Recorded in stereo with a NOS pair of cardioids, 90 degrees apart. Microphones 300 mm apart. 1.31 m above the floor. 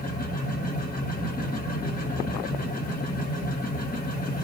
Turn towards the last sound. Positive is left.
turn(degrees=30)